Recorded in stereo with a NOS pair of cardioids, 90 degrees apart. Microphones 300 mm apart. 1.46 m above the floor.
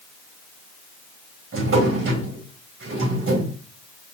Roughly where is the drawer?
Ahead right.